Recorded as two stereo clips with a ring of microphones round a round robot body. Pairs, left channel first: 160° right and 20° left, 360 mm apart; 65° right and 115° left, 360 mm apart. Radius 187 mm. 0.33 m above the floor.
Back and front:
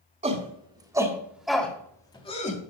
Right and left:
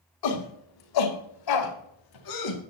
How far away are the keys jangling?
I don't hear keys jangling.